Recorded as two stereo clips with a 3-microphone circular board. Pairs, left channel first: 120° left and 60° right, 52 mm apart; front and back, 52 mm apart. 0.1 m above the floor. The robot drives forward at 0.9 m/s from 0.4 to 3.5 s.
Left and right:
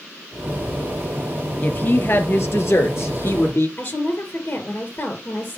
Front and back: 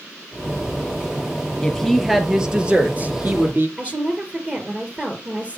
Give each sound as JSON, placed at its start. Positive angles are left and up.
{"t": 1.6, "sound": "a woman speaking", "azimuth_deg": 75, "distance_m": 1.7}
{"t": 3.8, "sound": "a woman speaking", "azimuth_deg": 125, "distance_m": 2.5}